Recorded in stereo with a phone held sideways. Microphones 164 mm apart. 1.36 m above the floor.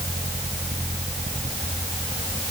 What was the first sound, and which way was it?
Only background noise.